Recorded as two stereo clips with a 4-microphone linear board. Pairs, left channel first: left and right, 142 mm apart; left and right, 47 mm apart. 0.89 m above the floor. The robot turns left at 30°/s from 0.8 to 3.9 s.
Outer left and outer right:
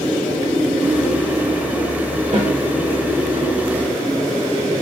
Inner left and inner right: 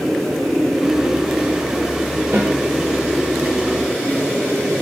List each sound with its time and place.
2.3 s a snare drum: 60° right (ahead or behind), 1.0 m; by 2.5 s 65° right (ahead or behind), 1.0 m